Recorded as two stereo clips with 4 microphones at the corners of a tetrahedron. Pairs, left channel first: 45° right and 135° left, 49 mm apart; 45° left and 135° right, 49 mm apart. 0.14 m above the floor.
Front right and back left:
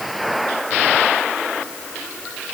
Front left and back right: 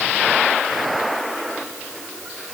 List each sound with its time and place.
Only background noise.